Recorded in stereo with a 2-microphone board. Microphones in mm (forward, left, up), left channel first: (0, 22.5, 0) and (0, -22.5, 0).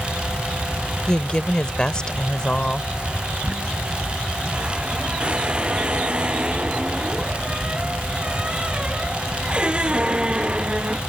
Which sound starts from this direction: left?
A woman speaking, at 1.1 s.